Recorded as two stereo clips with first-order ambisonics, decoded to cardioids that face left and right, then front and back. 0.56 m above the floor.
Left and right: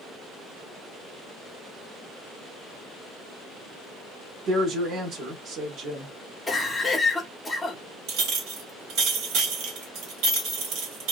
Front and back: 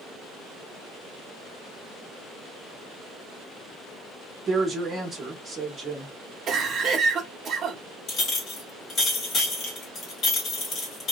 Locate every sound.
4.5 s a woman speaking: 120° right, 1.0 m
6.5 s a cough: 160° left, 0.8 m
8.1 s a clink: 55° right, 1.2 m